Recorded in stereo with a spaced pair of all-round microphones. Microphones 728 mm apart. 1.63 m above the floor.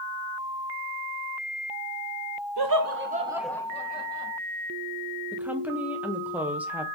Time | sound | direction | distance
2.6 | laughter | 35° right (ahead or behind) | 0.7 m
5.3 | a woman speaking | centre (ahead or behind) | 0.7 m